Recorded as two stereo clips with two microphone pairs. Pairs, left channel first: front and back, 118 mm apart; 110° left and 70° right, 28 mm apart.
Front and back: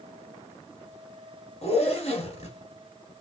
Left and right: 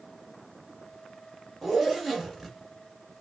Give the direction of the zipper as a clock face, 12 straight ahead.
11 o'clock.